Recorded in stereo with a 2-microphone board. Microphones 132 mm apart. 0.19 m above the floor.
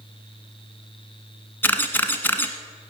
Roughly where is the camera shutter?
Centre.